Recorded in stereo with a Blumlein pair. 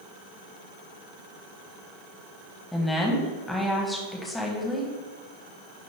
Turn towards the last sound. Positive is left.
turn(degrees=10)